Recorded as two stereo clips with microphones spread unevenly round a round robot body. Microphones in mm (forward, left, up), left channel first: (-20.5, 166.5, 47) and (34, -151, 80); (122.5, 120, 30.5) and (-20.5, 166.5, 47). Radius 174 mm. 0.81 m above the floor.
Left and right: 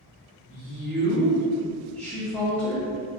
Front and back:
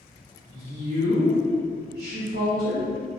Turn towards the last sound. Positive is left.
turn(degrees=-175)